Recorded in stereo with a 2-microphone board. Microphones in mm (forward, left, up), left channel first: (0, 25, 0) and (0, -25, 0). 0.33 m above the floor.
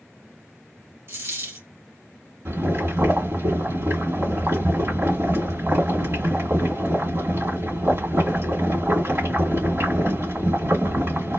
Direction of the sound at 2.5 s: 60° right (ahead or behind).